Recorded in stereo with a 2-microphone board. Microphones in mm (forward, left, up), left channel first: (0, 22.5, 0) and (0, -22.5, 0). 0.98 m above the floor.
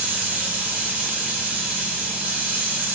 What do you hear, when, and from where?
0.0 s running water: 35° right (ahead or behind), 5 m